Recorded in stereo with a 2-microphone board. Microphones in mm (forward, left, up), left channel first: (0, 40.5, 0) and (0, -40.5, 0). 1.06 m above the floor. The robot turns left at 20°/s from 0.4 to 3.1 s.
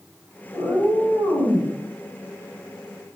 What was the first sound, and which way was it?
A cat meowing, 45° right (ahead or behind).